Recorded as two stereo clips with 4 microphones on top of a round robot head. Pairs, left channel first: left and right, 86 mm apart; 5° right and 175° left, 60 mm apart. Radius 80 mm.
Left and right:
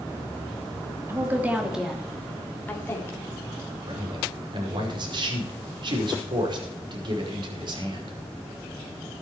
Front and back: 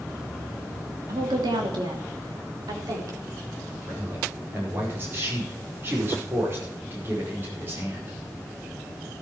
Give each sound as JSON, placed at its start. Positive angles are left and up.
{"t": 1.1, "sound": "a woman speaking", "azimuth_deg": -150, "distance_m": 3.0}
{"t": 3.9, "sound": "a man speaking", "azimuth_deg": -125, "distance_m": 5.0}